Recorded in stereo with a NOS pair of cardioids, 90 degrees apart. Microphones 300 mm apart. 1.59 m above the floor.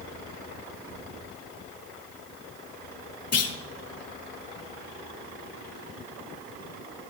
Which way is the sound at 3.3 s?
55° left.